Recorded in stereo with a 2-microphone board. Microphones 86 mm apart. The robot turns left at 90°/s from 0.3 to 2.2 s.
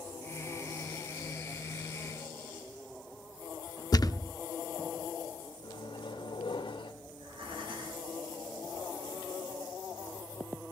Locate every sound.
3.9 s a thud: 50° left (ahead or behind), 0.8 m
5.6 s a microwave: 85° left, 2.5 m
7.1 s breathing: 80° right, 5.5 m